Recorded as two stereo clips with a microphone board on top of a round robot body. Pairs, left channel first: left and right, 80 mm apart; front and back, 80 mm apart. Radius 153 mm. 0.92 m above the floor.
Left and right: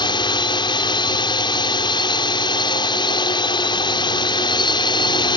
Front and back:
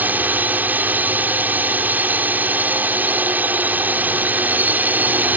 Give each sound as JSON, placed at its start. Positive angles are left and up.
{"t": 0.0, "sound": "a drone", "azimuth_deg": 110}